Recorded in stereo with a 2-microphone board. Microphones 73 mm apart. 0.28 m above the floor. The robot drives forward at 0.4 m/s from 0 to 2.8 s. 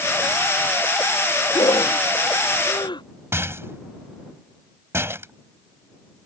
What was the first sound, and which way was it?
Breathing, 85° left.